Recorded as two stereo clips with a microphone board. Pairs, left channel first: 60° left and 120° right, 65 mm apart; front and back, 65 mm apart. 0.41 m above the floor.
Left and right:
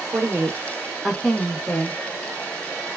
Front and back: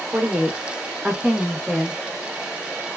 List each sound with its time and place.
0.1 s a woman speaking: 120° right, 1.0 m; by 2.0 s 95° left, 1.0 m